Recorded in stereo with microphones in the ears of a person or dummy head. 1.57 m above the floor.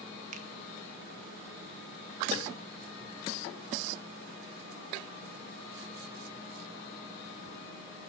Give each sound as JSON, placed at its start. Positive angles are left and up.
{"t": 0.3, "sound": "a finger snap", "side_deg": -45, "distance_m": 1.1}